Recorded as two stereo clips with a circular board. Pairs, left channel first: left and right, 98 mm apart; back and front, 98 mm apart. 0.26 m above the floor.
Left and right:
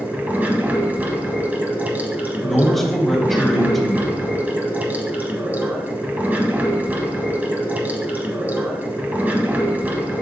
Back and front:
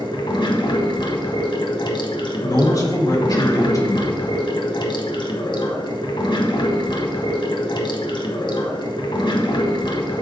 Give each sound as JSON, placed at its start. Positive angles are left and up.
{"t": 0.0, "sound": "running water", "azimuth_deg": -160, "distance_m": 1.1}
{"t": 2.4, "sound": "a man speaking", "azimuth_deg": 175, "distance_m": 1.3}